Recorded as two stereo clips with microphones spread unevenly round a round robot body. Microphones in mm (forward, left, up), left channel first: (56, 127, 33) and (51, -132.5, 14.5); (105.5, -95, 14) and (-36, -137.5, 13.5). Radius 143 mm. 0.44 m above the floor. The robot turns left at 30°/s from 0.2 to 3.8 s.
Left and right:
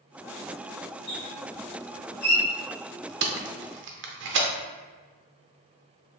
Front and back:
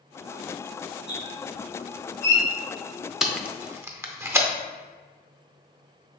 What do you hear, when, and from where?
1.1 s a squeak: 140° left, 1.8 m; by 2.4 s 100° left, 1.8 m
3.2 s tape being pulled: 75° right, 0.7 m; by 4.5 s 95° right, 0.7 m